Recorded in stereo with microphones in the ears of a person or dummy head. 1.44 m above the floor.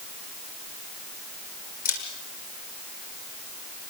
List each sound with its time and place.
1.9 s a camera shutter: 40° left (ahead or behind), 7 m